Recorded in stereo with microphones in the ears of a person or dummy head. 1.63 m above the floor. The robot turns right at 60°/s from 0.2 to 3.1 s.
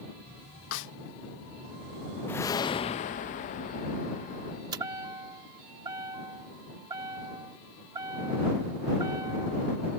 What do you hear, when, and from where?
0.7 s a snare drum: 70° left (ahead or behind); by 0.9 s 60° left (ahead or behind)
2.3 s a whoosh: 15° left; by 4.6 s 65° left
4.7 s a chime: 25° right (ahead or behind)